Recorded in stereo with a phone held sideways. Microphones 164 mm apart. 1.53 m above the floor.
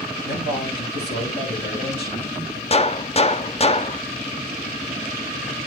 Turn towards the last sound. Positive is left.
turn(degrees=35)  # may be behind; listen again after turning